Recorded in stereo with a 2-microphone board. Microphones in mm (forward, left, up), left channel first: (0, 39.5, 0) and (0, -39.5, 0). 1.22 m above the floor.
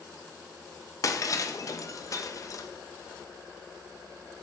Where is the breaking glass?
45° left (ahead or behind), 0.5 m.